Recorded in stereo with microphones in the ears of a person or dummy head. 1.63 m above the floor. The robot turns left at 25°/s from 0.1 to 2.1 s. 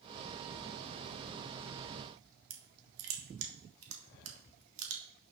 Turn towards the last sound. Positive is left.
turn(degrees=-75)  # may be behind; listen again after turning